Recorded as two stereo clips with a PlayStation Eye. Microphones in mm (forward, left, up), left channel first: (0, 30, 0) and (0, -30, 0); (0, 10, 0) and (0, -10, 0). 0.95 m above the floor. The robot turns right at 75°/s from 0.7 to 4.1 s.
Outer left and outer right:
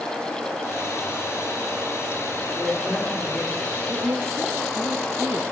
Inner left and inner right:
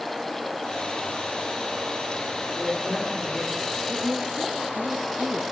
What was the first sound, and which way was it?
A woman speaking, 60° right.